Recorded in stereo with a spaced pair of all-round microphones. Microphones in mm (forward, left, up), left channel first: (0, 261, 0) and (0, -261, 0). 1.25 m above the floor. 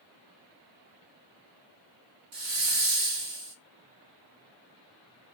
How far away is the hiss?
About 1.1 m.